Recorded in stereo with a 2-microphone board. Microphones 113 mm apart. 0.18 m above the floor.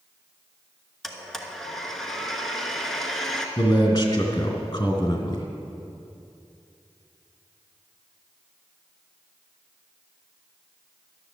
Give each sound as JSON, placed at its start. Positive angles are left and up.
{"t": 1.0, "sound": "a blender", "side_deg": 5, "distance_m": 1.2}
{"t": 3.6, "sound": "a man speaking", "side_deg": 35, "distance_m": 2.5}